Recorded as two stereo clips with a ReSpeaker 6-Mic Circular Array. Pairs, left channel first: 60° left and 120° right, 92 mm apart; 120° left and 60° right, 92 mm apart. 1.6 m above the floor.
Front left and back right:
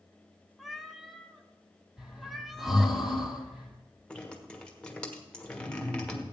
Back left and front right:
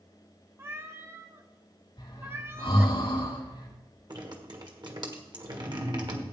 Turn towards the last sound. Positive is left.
turn(degrees=-20)